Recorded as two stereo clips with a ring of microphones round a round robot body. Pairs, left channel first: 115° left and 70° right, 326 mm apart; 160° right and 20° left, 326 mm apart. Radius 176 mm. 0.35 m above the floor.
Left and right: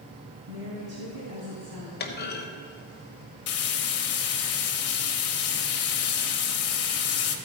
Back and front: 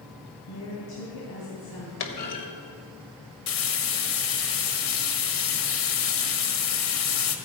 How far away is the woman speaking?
About 3 m.